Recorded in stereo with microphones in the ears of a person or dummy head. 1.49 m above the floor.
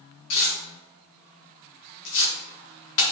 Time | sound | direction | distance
0.3 | tearing paper | 65° left (ahead or behind) | 1.9 m